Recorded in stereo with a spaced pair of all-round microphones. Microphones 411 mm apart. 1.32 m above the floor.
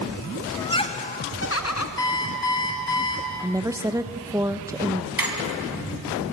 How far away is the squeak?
About 2.5 m.